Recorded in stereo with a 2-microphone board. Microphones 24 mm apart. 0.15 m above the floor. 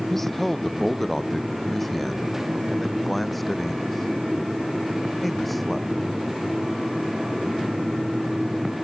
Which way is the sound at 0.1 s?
10° left (ahead or behind).